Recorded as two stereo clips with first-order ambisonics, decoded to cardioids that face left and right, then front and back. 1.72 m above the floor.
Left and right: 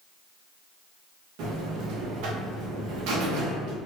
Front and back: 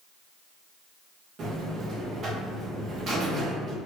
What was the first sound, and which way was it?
A buzzer, 120° right.